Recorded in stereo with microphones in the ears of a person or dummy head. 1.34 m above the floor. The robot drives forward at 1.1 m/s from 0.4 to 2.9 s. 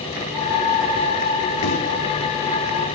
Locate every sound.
1.6 s a microwave: 70° left (ahead or behind), 1.3 m; by 1.8 s 65° left (ahead or behind), 1.4 m